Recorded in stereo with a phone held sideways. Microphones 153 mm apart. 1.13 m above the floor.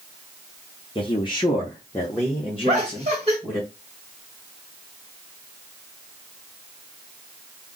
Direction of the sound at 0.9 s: 35° left (ahead or behind).